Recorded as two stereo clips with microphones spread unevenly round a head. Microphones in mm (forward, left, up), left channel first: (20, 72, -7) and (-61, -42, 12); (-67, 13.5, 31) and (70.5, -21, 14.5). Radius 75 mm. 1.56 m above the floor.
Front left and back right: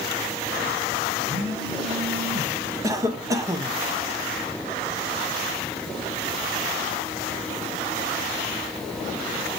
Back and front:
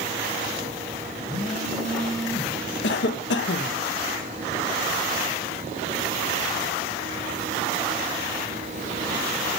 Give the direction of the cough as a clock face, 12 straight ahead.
6 o'clock.